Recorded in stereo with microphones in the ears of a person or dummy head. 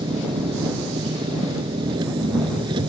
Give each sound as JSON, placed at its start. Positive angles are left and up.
{"t": 0.0, "sound": "an engine running", "side_deg": -30}